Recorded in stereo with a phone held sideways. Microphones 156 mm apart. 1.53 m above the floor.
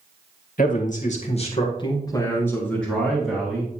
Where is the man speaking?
60° left (ahead or behind), 1.9 m; by 3.8 s 10° right (ahead or behind), 2.5 m.